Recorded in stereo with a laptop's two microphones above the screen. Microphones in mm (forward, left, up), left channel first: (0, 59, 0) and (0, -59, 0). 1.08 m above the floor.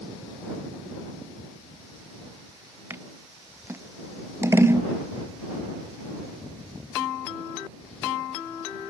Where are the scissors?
20° right (ahead or behind).